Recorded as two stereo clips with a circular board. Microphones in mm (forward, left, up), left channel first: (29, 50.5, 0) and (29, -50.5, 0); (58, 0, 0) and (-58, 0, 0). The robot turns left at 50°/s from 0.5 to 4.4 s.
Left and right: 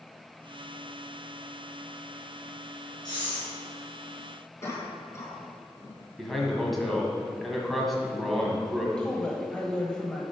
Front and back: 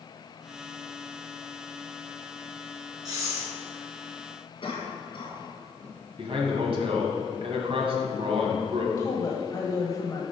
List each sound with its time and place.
3.0 s breathing: 130° left, 3 m; by 3.5 s 110° left, 3 m
4.6 s a cough: 35° left, 2.5 m
6.2 s a man speaking: straight behind, 1.5 m
9.0 s a woman speaking: 15° left, 1.0 m